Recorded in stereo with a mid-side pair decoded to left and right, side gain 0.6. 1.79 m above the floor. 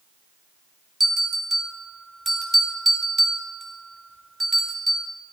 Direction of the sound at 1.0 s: 15° right.